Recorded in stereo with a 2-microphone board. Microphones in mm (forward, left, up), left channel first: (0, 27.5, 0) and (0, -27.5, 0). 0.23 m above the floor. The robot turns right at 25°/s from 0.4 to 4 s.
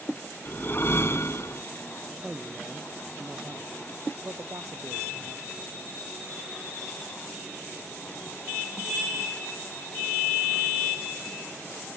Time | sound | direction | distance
0.5 | a whoosh | 45° left (ahead or behind) | ?
2.2 | a man speaking | 160° right | ?